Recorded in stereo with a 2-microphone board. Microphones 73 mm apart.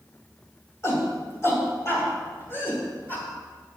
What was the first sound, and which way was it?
A shout, 35° left (ahead or behind).